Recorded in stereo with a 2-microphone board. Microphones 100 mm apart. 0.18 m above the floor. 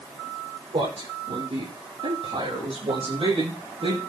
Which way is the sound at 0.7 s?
80° right.